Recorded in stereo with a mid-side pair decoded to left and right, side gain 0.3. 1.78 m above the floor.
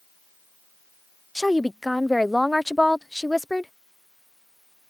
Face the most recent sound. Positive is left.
turn(degrees=5)